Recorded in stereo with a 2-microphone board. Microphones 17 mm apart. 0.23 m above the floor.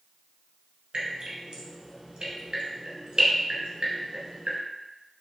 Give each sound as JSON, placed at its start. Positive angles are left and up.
{"t": 0.9, "sound": "dripping", "side_deg": -65, "distance_m": 1.3}